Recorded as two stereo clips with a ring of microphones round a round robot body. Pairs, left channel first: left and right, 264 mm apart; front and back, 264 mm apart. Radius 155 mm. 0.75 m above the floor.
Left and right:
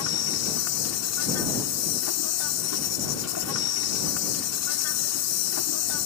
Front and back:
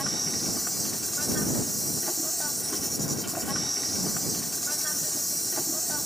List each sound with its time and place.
0.0 s an insect: 90° left